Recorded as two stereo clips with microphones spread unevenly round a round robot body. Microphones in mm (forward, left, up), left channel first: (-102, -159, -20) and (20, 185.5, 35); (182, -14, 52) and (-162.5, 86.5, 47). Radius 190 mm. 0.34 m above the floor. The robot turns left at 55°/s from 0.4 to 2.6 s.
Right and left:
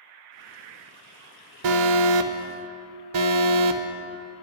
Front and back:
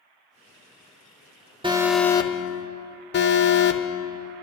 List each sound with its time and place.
1.6 s an alarm: 90° left, 0.9 m; by 3.8 s 40° left, 0.9 m